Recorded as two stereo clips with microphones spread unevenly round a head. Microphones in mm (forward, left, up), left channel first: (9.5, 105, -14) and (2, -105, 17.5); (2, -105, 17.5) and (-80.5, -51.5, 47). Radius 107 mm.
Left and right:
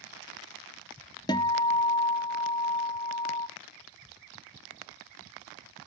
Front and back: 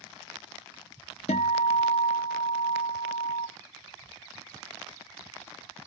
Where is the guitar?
15° left, 0.5 m.